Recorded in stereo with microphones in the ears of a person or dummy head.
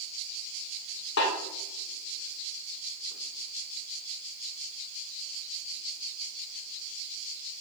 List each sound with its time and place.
1.2 s a snare drum: 65° left (ahead or behind), 2 m